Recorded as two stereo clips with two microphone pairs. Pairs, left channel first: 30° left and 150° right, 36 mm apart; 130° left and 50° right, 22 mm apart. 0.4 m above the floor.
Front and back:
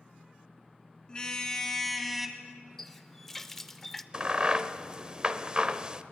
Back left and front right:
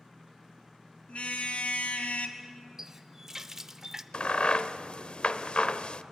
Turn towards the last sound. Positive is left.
turn(degrees=155)